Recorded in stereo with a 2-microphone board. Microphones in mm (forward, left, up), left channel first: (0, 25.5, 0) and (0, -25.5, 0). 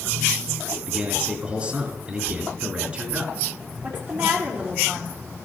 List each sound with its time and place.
0.9 s a man speaking: 25° right (ahead or behind), 3.5 m
3.8 s a woman speaking: 45° right (ahead or behind), 3.5 m